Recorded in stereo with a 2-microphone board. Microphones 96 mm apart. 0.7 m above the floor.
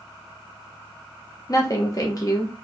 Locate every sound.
1.5 s a woman speaking: 35° left (ahead or behind), 0.6 m